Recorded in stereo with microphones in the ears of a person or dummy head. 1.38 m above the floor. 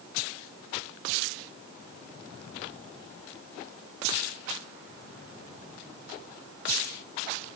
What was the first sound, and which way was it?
Only background noise.